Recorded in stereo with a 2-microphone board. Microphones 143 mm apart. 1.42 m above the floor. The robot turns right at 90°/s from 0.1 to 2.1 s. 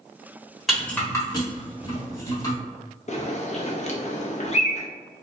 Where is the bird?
50° left (ahead or behind), 0.6 m.